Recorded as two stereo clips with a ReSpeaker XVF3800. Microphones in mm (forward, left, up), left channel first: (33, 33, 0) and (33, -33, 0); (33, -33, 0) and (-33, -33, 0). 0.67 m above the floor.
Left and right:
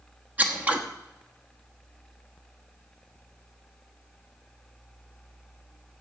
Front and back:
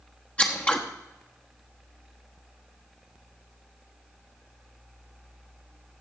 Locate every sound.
0.4 s scissors: 50° right, 1.1 m